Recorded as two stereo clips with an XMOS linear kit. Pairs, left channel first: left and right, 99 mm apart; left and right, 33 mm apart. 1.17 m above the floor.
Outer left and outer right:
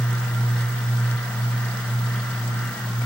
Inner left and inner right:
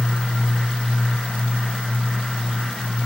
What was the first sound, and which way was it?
Only background noise.